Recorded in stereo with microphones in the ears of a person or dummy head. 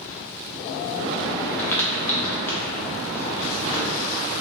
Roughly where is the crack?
Centre.